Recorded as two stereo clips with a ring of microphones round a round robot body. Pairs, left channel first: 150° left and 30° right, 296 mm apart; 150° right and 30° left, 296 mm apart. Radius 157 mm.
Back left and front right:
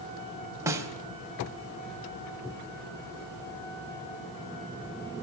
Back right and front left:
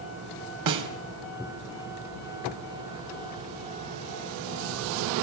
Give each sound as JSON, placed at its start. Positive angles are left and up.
{"t": 0.7, "sound": "a snare drum", "azimuth_deg": 50, "distance_m": 3.5}